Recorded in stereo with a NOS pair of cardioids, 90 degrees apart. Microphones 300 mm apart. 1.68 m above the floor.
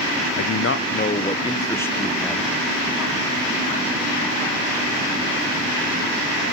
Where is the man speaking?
65° left, 0.9 m; by 2.5 s straight ahead, 1.9 m.